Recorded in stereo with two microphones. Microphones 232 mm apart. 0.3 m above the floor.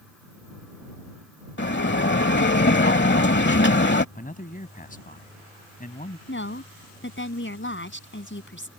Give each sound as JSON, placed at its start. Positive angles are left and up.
{"t": 1.6, "sound": "a bell", "side_deg": 55}
{"t": 4.2, "sound": "a man speaking", "side_deg": 40}
{"t": 6.3, "sound": "a woman speaking", "side_deg": 60}